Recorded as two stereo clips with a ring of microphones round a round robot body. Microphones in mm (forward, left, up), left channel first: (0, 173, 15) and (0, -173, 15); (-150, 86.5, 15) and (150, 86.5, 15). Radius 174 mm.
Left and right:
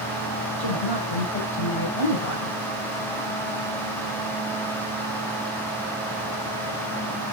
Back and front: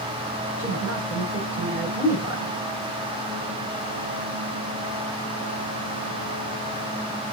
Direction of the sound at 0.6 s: 80° left.